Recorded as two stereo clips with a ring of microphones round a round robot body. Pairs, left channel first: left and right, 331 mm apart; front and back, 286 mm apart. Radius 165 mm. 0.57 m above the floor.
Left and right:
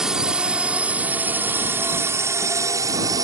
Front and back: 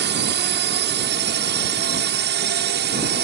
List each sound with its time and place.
0.0 s a drone: 175° right; by 3.2 s 160° right